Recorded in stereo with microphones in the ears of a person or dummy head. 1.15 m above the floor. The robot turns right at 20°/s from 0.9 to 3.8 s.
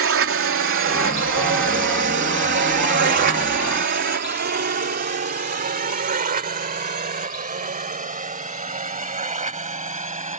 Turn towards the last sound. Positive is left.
turn(degrees=-30)  # may be behind; listen again after turning